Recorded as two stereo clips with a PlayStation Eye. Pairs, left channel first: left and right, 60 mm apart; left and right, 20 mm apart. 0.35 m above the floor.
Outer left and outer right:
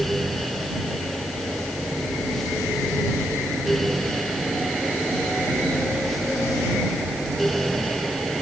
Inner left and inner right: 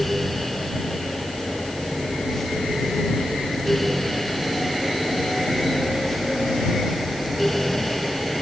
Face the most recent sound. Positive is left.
No sound to turn to.